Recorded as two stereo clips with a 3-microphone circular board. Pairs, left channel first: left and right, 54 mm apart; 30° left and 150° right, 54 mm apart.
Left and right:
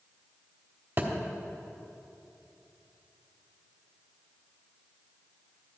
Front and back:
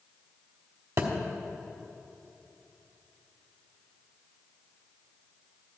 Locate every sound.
1.0 s a thud: 140° right, 1.2 m